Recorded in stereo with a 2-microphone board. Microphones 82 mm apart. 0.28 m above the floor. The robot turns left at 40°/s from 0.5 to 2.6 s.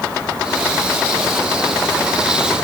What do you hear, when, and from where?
Only background noise.